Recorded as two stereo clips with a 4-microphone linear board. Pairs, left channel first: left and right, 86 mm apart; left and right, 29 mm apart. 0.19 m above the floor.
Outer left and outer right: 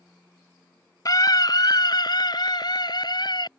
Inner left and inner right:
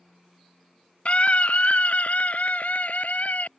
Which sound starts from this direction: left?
A scream, at 1.1 s.